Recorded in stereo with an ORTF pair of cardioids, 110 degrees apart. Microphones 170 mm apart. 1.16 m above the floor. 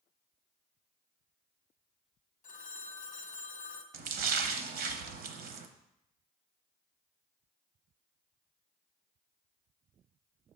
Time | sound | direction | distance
2.4 | a phone ringing | 50° left | 0.7 m
3.9 | a splash | 65° right | 0.7 m